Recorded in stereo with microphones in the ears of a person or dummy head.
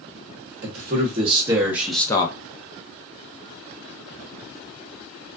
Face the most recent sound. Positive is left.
turn(degrees=20)  # may be behind; listen again after turning